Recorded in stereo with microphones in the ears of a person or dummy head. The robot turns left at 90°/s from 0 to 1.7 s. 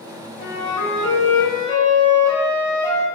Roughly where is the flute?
Behind left.